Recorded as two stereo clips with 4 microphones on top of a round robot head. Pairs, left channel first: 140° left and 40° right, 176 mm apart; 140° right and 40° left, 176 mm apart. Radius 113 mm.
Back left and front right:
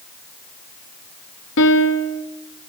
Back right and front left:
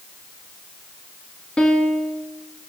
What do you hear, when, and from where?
1.6 s a piano: 135° left, 1.3 m